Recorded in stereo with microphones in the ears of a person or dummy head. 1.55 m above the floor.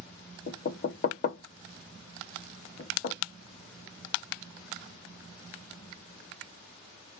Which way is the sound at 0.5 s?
45° left (ahead or behind).